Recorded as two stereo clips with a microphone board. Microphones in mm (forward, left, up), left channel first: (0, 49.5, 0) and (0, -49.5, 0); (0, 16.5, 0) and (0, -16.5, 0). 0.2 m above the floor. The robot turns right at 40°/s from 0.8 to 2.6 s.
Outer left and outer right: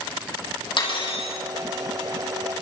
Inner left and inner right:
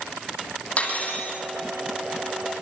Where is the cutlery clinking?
55° left (ahead or behind), 5.5 m; by 1.3 s 75° left (ahead or behind), 5.5 m.